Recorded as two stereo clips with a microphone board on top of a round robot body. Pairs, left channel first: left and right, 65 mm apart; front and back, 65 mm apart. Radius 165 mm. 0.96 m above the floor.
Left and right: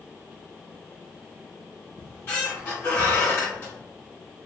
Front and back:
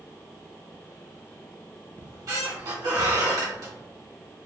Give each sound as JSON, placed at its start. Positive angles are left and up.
{"t": 2.0, "sound": "a squeak", "azimuth_deg": 155, "distance_m": 1.4}